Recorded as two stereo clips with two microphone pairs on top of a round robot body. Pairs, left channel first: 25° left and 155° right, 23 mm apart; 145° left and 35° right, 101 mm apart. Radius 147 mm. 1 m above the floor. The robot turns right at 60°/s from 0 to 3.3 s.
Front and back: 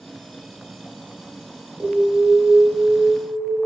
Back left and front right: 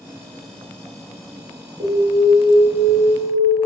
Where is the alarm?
65° right, 2 m; by 3.6 s 25° left, 2 m.